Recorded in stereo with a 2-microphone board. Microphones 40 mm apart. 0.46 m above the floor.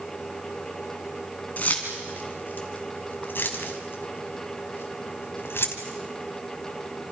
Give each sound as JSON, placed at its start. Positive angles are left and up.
{"t": 1.6, "sound": "keys jangling", "side_deg": 40, "distance_m": 3.5}